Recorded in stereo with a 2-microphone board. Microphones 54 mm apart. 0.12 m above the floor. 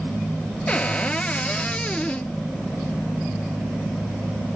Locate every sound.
0.7 s a cupboard door: 20° left (ahead or behind), 0.6 m